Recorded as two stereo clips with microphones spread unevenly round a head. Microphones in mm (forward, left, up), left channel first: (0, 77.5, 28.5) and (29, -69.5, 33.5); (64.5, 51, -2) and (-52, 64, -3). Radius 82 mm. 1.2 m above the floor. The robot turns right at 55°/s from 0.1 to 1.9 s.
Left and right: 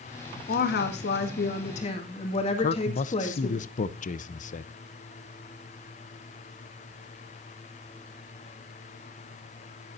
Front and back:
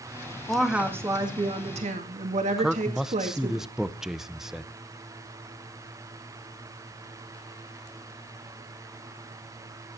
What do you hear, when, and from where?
0.5 s a woman speaking: 75° left, 2 m; by 3.6 s 155° left, 2 m
2.6 s a man speaking: 90° left, 0.8 m